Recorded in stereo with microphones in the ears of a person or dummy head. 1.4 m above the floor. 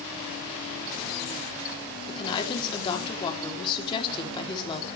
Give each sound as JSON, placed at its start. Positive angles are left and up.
{"t": 2.1, "sound": "a woman speaking", "side_deg": 30, "distance_m": 3.5}